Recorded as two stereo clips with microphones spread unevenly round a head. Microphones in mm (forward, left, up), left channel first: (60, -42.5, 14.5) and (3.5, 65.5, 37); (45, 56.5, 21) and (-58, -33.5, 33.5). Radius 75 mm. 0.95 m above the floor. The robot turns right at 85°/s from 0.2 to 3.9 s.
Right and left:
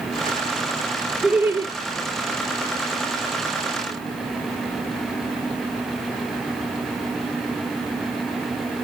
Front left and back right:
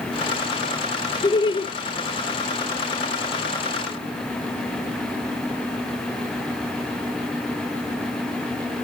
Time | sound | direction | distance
1.2 | laughter | 20° left | 0.5 m